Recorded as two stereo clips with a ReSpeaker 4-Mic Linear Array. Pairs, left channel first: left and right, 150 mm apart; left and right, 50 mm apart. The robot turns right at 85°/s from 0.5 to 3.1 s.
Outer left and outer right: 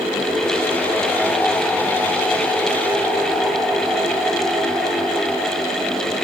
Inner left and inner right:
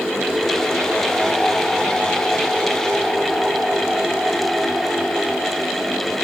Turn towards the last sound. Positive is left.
No sound to turn to.